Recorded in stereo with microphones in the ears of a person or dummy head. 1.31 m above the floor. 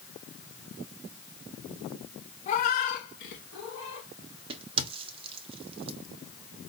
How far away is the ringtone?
No ringtone in this recording.